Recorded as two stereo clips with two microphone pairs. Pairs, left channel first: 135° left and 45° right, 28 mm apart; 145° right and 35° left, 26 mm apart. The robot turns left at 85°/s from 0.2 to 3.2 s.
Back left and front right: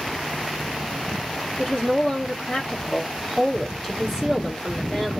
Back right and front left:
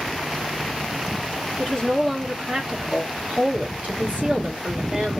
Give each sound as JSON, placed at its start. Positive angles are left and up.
{"t": 1.6, "sound": "a woman speaking", "azimuth_deg": 180, "distance_m": 1.4}